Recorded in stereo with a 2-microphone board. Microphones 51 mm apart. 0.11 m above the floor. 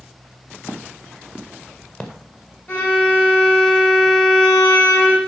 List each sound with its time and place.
0.7 s footsteps: 50° left (ahead or behind), 2 m; by 2.1 s 25° left (ahead or behind), 2.5 m
2.7 s a violin: 35° left (ahead or behind), 6.5 m